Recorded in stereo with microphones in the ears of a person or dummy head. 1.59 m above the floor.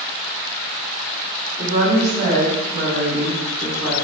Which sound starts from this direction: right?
A woman speaking, at 1.6 s.